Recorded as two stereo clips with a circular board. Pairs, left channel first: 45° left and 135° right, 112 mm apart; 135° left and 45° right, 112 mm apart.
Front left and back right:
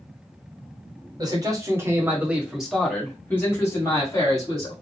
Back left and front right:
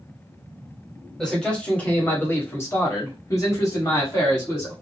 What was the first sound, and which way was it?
A man speaking, 145° right.